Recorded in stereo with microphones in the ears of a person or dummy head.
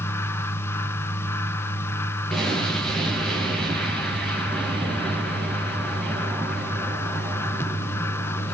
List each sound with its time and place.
0.0 s a fan: 15° left (ahead or behind), 1.0 m
2.3 s an explosion: centre (ahead or behind), 8.5 m